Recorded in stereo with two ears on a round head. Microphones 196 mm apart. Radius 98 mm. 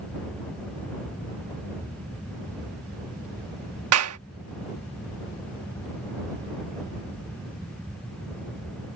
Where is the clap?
75° right (ahead or behind).